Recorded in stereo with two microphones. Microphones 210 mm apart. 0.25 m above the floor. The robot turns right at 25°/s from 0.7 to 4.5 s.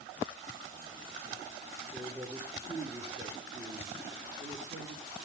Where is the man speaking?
175° left, 4.5 m; by 5.2 s 120° right, 4.5 m.